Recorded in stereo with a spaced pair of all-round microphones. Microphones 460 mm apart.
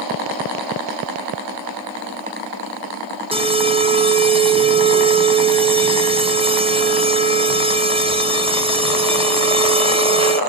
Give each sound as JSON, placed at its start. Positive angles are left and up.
{"t": 3.3, "sound": "an alarm", "side_deg": -10, "distance_m": 1.0}